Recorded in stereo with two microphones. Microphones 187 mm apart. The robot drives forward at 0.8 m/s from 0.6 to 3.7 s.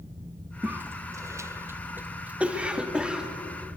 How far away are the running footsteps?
I don't hear running footsteps.